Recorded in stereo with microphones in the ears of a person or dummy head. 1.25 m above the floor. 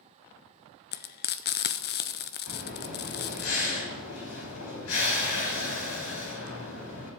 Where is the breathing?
75° left (ahead or behind), 3 m.